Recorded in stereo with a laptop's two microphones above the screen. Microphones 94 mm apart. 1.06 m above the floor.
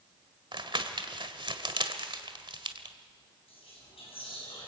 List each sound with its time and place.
0.5 s crumpling: 60° right (ahead or behind), 1.7 m
3.5 s whispering: 85° left, 9 m